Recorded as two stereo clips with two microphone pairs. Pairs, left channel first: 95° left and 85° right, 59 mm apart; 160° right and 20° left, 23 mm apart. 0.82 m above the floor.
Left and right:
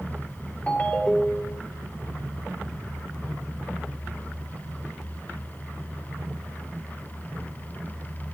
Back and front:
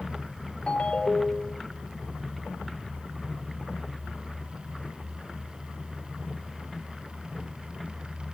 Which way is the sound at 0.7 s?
155° left.